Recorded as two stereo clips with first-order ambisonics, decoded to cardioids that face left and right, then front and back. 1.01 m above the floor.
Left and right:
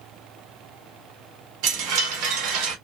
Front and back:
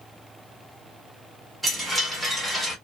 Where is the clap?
I don't hear a clap.